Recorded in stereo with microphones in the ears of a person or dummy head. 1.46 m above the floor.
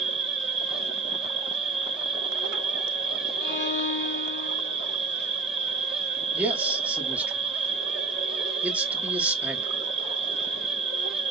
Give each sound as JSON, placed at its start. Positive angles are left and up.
{"t": 0.0, "sound": "an insect", "side_deg": -30, "distance_m": 1.1}
{"t": 3.4, "sound": "a violin", "side_deg": 45, "distance_m": 1.8}
{"t": 6.3, "sound": "a man speaking", "side_deg": -5, "distance_m": 1.2}